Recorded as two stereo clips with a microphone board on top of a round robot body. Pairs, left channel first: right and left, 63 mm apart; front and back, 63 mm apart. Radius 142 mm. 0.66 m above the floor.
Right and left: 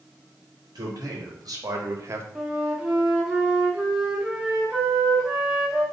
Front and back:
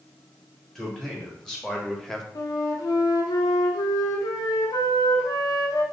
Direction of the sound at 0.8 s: 80° left.